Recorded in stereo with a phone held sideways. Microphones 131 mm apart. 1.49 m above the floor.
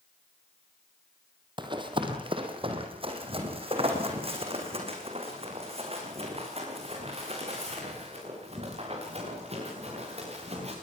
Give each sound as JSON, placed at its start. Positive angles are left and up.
{"t": 1.6, "sound": "running footsteps", "side_deg": -35, "distance_m": 3.0}